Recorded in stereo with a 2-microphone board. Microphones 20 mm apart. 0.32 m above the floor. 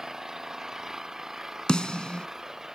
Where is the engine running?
20° right (ahead or behind).